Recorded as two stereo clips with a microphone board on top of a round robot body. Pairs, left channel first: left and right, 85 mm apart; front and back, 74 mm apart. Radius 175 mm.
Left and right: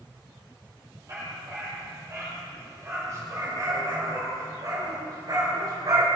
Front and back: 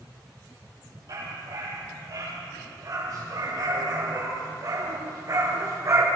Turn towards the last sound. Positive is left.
turn(degrees=-135)